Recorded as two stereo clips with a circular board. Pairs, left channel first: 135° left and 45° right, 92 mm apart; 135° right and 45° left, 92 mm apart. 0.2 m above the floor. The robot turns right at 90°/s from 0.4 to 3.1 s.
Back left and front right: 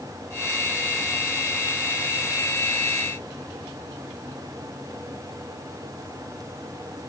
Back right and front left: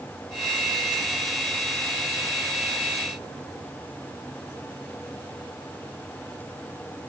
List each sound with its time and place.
Only background noise.